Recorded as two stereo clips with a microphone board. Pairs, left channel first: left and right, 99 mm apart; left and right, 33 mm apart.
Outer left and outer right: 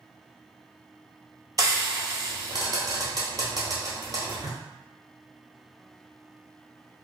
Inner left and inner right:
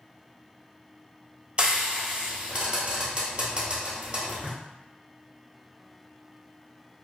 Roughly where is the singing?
No singing in this recording.